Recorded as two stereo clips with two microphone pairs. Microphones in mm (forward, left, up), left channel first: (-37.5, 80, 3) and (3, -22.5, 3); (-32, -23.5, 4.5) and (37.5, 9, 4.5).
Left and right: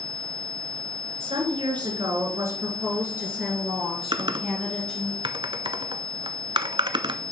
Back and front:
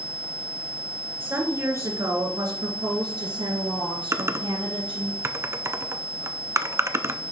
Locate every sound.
1.2 s a woman speaking: 35° right, 2 m; by 5.1 s 30° left, 3.5 m
4.1 s typing on a keyboard: 25° right, 0.5 m